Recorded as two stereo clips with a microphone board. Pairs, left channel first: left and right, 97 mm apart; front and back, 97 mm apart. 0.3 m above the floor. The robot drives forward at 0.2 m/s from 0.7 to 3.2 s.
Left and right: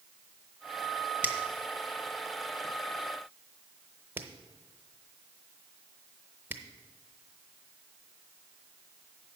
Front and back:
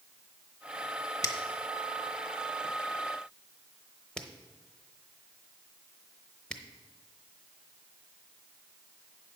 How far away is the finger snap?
About 0.9 m.